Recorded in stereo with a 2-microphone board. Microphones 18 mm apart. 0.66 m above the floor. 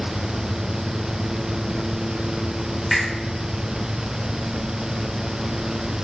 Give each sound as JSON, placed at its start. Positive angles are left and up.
{"t": 2.9, "sound": "a finger snap", "side_deg": -15, "distance_m": 1.6}